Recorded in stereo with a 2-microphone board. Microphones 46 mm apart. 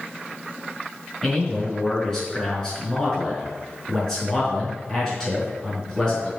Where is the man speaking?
10° left (ahead or behind), 4.5 m.